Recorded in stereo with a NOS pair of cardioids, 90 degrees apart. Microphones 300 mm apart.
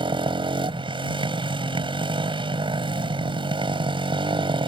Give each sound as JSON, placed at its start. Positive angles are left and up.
{"t": 0.0, "sound": "a motorcycle", "azimuth_deg": -15}